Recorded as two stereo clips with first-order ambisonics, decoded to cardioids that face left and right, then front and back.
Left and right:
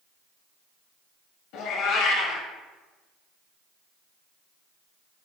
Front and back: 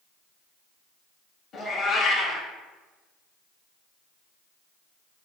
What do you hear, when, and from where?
1.5 s a cat meowing: 65° left, 0.6 m